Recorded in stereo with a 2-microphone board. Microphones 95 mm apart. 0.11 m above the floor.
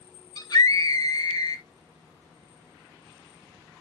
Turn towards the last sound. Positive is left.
turn(degrees=45)  # may be behind; listen again after turning